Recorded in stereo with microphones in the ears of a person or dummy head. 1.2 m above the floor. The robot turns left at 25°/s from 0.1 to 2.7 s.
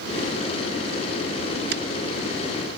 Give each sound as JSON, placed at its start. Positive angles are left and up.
{"t": 1.7, "sound": "a finger snap", "side_deg": -60}